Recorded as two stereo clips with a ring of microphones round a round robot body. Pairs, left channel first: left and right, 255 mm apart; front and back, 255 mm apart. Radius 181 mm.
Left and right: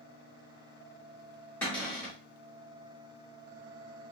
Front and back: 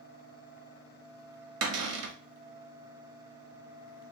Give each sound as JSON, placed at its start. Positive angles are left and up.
{"t": 1.6, "sound": "a cupboard door", "azimuth_deg": 175, "distance_m": 0.5}